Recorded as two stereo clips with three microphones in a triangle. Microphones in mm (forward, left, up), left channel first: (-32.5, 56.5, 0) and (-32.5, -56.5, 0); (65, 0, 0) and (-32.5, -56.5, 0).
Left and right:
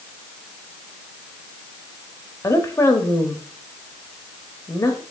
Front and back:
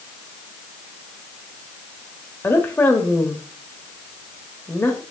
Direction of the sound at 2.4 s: 70° left.